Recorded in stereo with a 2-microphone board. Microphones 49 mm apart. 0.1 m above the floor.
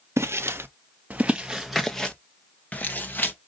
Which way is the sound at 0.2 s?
70° right (ahead or behind).